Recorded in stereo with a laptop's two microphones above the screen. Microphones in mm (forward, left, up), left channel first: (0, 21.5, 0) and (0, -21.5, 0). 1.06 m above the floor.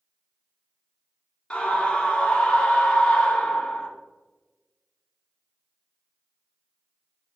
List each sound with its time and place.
1.5 s a scream: 20° left (ahead or behind), 0.5 m